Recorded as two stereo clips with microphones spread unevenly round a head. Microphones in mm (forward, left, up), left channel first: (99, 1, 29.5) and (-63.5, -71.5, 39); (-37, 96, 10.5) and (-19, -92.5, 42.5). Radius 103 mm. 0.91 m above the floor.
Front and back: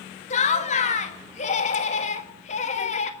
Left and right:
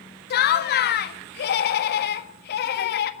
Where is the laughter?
75° left, 1.6 m.